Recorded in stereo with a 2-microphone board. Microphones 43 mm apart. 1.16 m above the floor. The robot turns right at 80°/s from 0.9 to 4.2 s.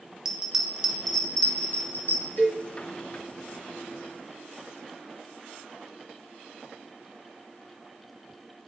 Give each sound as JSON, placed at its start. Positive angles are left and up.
{"t": 0.2, "sound": "a bell", "side_deg": -10, "distance_m": 0.5}
{"t": 2.4, "sound": "a cowbell", "side_deg": 50, "distance_m": 1.5}